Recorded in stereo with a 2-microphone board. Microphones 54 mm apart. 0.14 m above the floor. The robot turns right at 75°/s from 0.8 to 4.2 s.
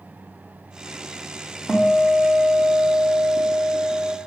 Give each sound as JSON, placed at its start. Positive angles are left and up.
{"t": 1.7, "sound": "a guitar", "azimuth_deg": -170, "distance_m": 2.0}